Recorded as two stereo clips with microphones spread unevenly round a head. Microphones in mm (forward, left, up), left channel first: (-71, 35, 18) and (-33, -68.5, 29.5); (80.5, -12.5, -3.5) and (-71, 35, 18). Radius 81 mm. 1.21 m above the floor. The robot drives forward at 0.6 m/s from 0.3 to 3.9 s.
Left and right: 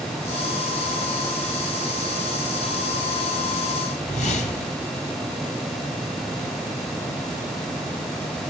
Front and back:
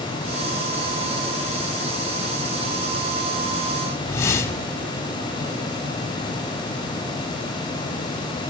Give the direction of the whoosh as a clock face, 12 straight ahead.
10 o'clock.